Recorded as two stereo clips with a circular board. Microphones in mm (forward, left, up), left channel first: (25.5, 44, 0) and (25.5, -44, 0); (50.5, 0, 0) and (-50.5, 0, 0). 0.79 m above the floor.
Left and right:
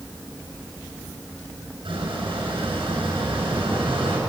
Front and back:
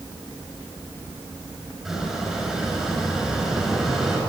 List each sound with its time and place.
1.9 s a squeak: 95° right, 7.5 m